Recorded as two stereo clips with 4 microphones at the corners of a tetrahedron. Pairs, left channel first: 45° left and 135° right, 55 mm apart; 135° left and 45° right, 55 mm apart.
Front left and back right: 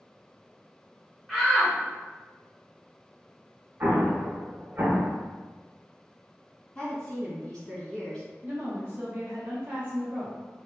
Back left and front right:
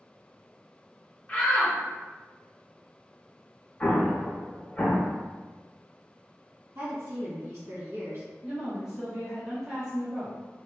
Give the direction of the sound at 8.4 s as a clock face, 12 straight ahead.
4 o'clock.